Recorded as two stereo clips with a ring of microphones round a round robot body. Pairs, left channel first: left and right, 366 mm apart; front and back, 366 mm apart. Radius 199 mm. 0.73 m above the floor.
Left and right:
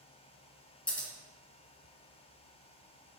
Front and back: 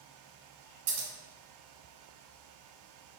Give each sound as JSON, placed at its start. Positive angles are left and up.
{"t": 0.9, "sound": "scissors", "azimuth_deg": 175, "distance_m": 1.4}